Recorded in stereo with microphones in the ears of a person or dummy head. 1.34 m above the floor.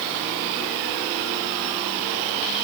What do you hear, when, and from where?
Only background noise.